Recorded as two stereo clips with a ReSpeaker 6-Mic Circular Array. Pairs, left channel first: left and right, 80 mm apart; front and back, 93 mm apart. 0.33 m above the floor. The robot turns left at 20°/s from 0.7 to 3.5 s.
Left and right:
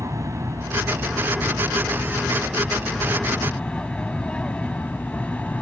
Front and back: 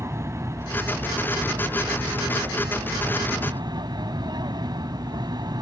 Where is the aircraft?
130° right; by 5.6 s 160° left.